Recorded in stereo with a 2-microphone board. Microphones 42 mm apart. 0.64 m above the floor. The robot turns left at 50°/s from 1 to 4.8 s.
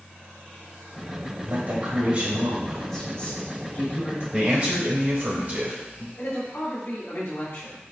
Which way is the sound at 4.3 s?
20° right (ahead or behind).